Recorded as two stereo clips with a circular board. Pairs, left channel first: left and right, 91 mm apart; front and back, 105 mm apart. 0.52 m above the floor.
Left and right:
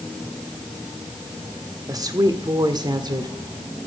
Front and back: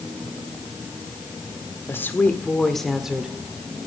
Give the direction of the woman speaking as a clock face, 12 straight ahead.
2 o'clock.